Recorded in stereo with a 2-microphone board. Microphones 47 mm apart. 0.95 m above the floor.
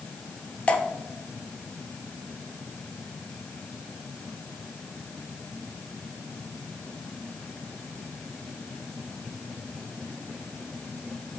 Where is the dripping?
30° left (ahead or behind), 0.6 m.